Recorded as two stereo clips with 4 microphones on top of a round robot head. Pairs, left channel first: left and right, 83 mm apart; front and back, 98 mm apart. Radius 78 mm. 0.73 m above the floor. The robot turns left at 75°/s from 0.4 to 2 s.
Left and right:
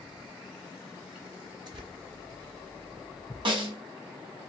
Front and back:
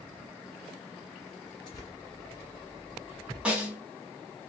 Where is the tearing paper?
55° right, 1.5 m; by 1.9 s 75° right, 1.5 m.